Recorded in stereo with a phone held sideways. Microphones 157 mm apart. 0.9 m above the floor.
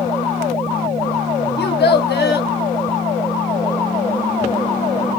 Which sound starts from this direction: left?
A child speaking, at 1.6 s.